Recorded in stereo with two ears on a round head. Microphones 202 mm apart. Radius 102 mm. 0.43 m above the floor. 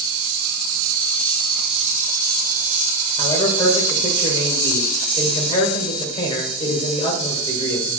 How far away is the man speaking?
About 1.7 m.